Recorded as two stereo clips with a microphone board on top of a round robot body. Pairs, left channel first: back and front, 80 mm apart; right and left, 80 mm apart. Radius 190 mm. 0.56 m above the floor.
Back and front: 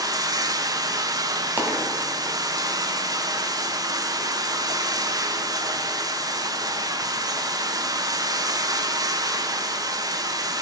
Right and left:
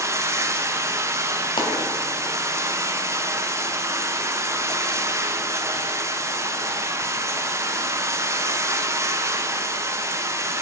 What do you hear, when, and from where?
0.0 s running water: 40° left, 0.9 m
1.6 s a dropped coin: 70° right, 1.8 m